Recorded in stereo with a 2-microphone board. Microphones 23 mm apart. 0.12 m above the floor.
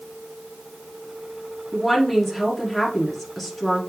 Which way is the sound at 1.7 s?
5° left (ahead or behind).